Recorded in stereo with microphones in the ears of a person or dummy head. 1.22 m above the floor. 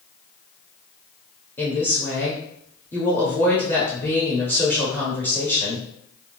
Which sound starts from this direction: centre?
A woman speaking, at 1.6 s.